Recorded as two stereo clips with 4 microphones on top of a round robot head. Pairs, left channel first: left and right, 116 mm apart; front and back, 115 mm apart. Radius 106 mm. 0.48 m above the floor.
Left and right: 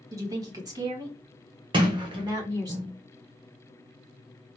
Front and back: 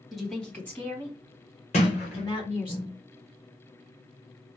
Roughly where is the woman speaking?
Right.